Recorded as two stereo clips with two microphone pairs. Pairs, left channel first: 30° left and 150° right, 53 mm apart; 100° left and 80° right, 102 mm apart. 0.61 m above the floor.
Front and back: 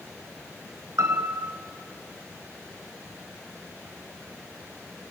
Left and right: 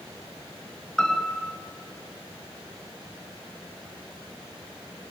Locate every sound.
1.0 s a piano: 175° right, 3 m